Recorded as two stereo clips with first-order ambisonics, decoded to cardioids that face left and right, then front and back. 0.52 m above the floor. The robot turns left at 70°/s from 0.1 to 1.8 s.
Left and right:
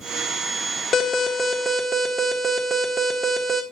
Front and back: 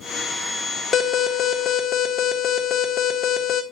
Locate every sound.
0.9 s an alarm: 55° left, 1.5 m; by 3.6 s 5° right, 1.5 m